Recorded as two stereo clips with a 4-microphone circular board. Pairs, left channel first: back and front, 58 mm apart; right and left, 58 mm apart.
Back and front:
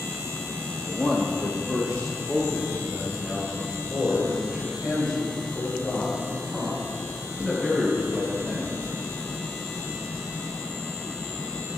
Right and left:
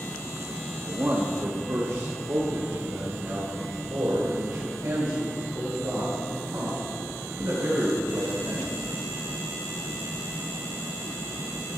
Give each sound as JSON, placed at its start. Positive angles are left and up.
{"t": 0.8, "sound": "a man speaking", "azimuth_deg": 115, "distance_m": 0.7}